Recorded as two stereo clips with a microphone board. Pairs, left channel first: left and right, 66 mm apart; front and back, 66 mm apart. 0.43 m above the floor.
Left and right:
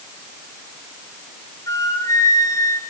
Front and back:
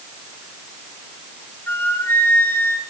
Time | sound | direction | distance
1.7 | a flute | 55° left | 4.5 m